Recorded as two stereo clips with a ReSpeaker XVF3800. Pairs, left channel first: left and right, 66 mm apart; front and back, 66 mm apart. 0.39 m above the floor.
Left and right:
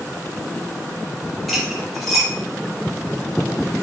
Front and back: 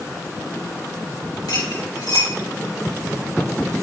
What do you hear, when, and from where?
1.5 s cutlery clinking: straight ahead, 5.5 m